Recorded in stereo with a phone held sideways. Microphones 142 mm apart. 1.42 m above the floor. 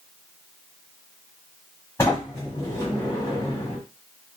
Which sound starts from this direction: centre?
A sliding door, at 2.0 s.